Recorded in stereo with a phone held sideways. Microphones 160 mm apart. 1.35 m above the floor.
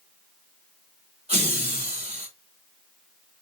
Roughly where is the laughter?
Right.